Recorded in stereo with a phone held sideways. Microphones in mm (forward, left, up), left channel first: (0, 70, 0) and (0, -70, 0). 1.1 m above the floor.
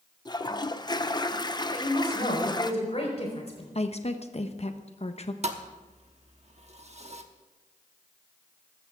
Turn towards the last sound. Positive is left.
turn(degrees=-50)  # may be behind; listen again after turning